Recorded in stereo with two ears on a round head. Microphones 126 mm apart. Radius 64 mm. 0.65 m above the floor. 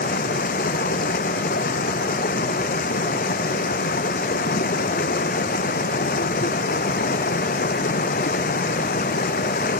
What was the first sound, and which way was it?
Running water, 60° left (ahead or behind).